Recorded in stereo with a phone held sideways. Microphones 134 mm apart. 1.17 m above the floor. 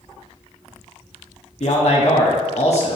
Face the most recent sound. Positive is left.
turn(degrees=55)  # may be behind; listen again after turning